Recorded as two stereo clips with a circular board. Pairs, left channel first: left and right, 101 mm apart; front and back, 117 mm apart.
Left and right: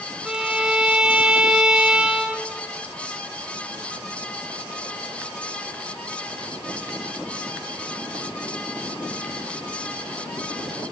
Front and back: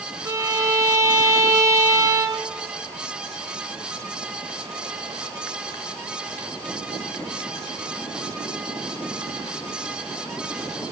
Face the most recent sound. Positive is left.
turn(degrees=-160)